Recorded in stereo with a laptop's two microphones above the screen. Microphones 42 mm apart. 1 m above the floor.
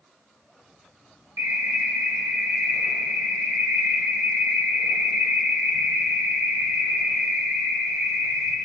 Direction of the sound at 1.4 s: 80° right.